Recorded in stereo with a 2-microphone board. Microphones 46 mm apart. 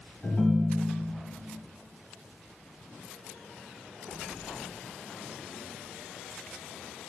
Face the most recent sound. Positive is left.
turn(degrees=25)  # may be behind; listen again after turning